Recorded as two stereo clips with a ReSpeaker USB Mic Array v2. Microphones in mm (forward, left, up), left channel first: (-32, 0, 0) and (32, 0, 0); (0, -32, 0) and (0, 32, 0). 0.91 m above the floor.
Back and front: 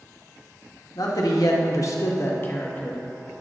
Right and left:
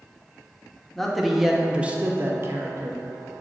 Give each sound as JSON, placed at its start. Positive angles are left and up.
{"t": 0.9, "sound": "a man speaking", "azimuth_deg": -175, "distance_m": 1.3}